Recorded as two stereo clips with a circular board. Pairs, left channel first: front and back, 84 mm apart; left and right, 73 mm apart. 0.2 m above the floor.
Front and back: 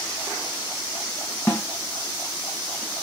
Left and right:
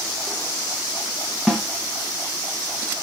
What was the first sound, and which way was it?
A snare drum, 10° left.